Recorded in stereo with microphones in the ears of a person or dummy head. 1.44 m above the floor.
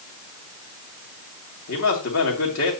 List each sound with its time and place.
1.7 s a man speaking: 70° left (ahead or behind), 2.5 m